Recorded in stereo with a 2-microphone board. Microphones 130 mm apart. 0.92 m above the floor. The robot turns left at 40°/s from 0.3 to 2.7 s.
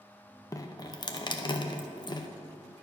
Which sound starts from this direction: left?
Dripping, at 0.5 s.